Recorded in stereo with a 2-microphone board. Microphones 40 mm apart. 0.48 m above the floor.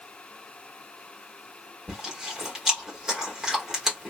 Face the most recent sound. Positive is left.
turn(degrees=-15)  # may be behind; listen again after turning